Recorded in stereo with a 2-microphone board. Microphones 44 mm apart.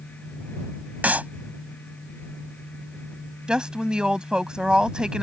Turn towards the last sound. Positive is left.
turn(degrees=-20)  # may be behind; listen again after turning